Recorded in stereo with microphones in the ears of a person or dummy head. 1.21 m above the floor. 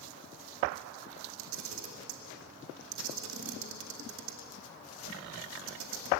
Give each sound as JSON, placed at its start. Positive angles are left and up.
{"t": 1.4, "sound": "a camera shutter", "side_deg": -70, "distance_m": 2.0}